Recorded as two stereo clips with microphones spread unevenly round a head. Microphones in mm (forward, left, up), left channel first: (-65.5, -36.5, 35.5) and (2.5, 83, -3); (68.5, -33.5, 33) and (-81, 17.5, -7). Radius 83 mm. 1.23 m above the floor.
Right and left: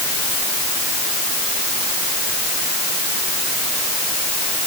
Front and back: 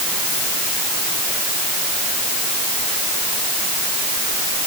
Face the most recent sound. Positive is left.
No sound to turn to.